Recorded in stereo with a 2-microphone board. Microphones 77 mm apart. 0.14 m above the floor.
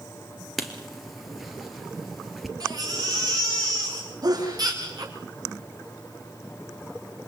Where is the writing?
Centre (ahead or behind), 2.5 m.